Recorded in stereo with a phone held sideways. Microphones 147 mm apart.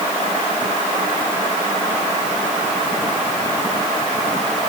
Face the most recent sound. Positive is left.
No sound to turn to.